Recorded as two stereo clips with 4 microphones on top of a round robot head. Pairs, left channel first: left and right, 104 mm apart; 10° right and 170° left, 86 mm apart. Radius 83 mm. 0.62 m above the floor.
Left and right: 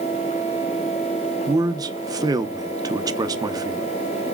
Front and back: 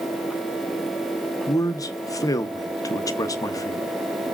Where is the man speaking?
45° right, 0.8 m.